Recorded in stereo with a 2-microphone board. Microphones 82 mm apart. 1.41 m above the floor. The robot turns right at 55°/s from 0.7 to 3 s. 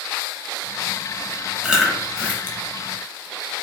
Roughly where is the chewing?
Centre.